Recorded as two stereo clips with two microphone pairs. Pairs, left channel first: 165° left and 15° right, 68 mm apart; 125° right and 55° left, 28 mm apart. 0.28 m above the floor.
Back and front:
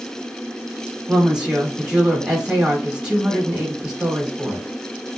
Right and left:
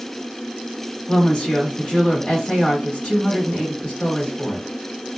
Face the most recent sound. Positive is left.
turn(degrees=-90)